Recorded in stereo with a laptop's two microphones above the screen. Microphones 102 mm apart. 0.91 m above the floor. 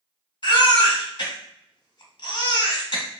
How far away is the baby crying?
About 1.3 m.